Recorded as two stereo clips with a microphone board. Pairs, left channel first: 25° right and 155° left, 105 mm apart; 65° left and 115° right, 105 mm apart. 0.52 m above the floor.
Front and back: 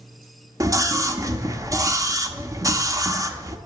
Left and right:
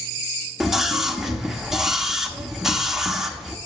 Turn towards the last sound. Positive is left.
turn(degrees=165)